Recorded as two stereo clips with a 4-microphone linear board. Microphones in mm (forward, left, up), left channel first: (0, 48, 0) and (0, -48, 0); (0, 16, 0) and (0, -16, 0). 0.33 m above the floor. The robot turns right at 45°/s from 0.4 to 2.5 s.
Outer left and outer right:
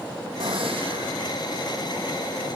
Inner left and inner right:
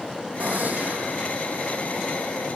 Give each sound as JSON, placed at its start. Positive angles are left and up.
{"t": 0.4, "sound": "a gunshot", "azimuth_deg": -85, "distance_m": 3.0}